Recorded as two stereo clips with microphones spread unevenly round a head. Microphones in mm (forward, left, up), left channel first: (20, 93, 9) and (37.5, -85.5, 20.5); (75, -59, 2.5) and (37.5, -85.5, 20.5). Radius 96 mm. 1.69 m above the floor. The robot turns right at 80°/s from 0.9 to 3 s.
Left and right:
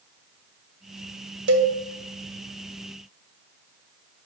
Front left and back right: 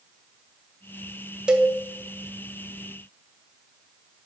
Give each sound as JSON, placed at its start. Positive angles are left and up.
{"t": 1.5, "sound": "a cowbell", "azimuth_deg": -90, "distance_m": 0.9}